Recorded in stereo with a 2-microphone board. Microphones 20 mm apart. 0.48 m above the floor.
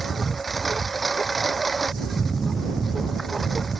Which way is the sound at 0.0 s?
5° left (ahead or behind).